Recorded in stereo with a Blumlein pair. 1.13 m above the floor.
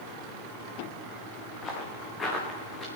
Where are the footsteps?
20° left, 4.5 m; by 2.9 s 15° left, 5 m.